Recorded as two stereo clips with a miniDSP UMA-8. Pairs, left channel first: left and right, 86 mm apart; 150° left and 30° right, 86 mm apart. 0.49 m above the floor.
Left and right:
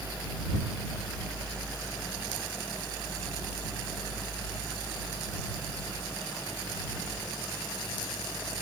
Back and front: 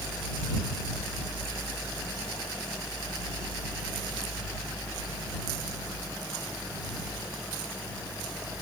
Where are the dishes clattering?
I don't hear dishes clattering.